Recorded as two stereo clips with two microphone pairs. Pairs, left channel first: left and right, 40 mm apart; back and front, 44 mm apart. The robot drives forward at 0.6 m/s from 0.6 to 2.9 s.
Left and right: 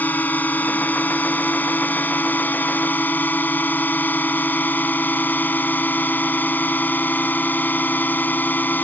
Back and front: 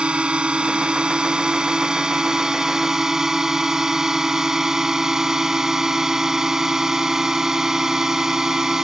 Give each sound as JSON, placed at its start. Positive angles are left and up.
{"t": 0.0, "sound": "a drone", "azimuth_deg": 65}